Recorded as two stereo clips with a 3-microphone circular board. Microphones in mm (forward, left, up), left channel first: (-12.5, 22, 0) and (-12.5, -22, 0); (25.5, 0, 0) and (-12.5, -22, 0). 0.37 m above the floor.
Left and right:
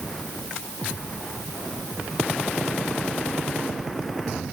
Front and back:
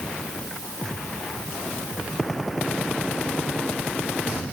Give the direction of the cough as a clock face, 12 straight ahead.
I don't hear a cough.